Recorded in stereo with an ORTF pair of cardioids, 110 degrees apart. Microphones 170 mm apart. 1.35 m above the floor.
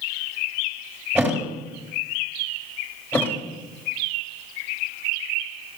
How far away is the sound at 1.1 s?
About 3.5 m.